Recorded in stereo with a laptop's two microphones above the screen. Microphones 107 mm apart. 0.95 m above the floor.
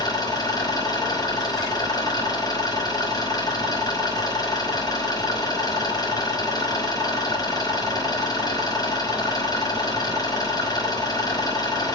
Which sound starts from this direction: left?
An engine running, at 0.0 s.